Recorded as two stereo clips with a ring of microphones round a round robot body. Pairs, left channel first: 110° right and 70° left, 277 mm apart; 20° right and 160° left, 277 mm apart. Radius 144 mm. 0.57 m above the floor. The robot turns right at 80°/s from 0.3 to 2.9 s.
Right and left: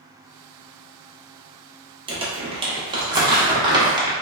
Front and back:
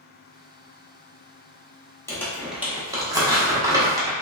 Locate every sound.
2.1 s crumpling: 40° left, 1.0 m; by 4.1 s 105° left, 1.0 m